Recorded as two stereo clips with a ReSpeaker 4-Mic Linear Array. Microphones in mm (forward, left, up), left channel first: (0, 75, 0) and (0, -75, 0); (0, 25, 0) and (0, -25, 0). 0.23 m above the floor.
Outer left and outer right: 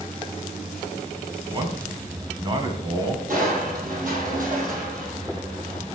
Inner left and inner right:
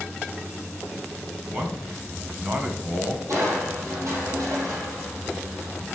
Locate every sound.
1.5 s a man speaking: 30° right (ahead or behind), 2 m
3.3 s crushing: 60° right (ahead or behind), 3.5 m